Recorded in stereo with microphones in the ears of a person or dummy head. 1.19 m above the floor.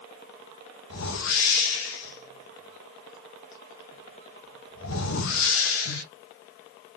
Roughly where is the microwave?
I don't hear a microwave.